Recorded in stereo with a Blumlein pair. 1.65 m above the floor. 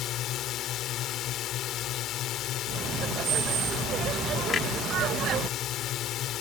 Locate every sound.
0.0 s a drone: 35° left
2.7 s laughter: 30° right
4.5 s a clunk: 20° left